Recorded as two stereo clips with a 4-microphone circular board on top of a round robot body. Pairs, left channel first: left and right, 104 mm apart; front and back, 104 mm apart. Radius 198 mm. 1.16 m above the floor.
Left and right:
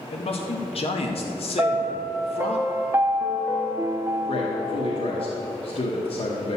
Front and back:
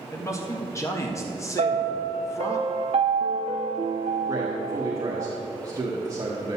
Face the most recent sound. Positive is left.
turn(degrees=120)